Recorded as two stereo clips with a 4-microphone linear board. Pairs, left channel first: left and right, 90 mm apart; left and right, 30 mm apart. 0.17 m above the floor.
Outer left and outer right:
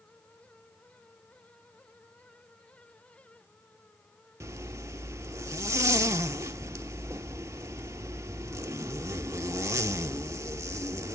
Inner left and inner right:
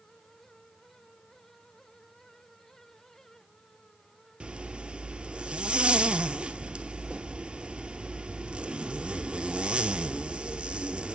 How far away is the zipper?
About 0.6 m.